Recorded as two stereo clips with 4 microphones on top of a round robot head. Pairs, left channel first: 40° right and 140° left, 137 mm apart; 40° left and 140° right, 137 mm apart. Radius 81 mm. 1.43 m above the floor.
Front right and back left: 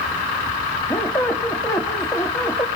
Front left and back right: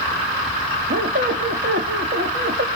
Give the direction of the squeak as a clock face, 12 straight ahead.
4 o'clock.